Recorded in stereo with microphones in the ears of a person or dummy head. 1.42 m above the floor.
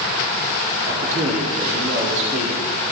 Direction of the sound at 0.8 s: 45° right (ahead or behind).